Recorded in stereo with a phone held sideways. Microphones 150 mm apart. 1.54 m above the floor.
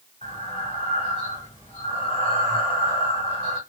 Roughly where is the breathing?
Left.